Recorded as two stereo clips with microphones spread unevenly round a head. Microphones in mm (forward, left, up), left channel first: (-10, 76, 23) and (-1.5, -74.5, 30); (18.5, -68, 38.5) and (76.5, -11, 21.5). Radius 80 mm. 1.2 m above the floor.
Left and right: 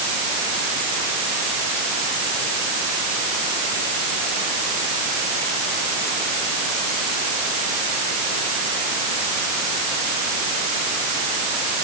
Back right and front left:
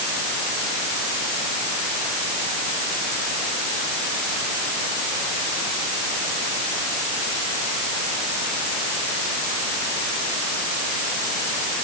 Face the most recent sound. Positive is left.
No sound to turn to.